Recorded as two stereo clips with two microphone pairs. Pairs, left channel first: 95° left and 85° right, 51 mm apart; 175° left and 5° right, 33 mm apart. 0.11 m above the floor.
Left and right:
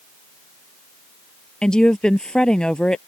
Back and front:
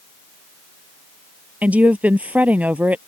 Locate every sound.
1.6 s a woman speaking: 25° left